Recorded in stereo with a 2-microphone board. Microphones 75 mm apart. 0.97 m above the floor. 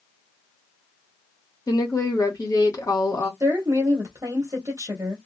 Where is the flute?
No flute in this recording.